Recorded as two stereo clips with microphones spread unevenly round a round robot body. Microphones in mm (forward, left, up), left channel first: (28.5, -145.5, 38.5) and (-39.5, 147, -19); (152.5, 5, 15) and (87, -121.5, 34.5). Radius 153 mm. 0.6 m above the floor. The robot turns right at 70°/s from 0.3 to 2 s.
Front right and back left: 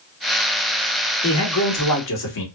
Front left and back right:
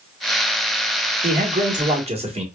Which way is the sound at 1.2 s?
130° right.